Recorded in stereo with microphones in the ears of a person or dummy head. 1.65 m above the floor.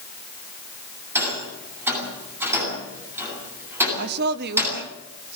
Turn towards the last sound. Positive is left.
turn(degrees=-55)  # may be behind; listen again after turning